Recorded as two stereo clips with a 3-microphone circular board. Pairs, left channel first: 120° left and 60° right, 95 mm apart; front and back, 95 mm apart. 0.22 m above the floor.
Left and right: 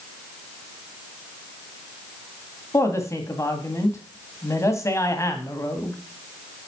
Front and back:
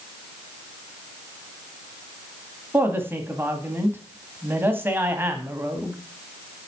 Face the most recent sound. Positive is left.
turn(degrees=140)